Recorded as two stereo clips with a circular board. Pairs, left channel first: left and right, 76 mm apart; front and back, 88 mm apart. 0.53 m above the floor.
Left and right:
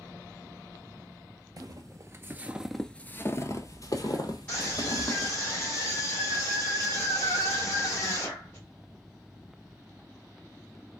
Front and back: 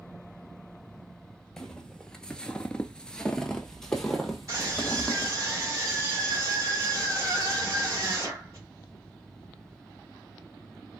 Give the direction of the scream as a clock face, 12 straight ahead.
7 o'clock.